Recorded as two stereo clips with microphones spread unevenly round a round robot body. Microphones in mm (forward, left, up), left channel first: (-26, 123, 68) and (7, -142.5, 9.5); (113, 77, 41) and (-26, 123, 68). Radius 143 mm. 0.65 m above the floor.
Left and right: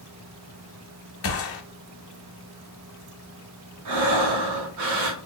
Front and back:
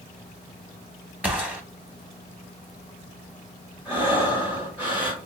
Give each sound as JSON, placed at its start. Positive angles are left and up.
{"t": 1.2, "sound": "a gunshot", "azimuth_deg": 70, "distance_m": 1.0}
{"t": 3.9, "sound": "breathing", "azimuth_deg": -110, "distance_m": 0.8}